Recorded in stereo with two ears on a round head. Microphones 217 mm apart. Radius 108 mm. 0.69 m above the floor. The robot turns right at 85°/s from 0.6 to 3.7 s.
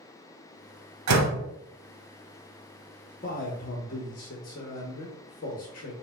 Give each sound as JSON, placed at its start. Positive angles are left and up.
{"t": 1.1, "sound": "a door slam", "azimuth_deg": -95, "distance_m": 1.2}
{"t": 3.2, "sound": "a man speaking", "azimuth_deg": 65, "distance_m": 0.9}